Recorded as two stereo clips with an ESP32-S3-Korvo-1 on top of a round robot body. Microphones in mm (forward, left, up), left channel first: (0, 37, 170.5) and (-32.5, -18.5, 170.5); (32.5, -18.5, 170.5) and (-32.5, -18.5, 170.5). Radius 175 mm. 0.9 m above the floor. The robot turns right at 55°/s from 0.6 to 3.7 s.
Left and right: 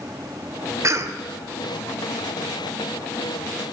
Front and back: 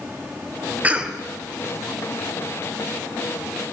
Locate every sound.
0.8 s a cough: 120° right, 0.8 m; by 1.2 s 100° right, 0.8 m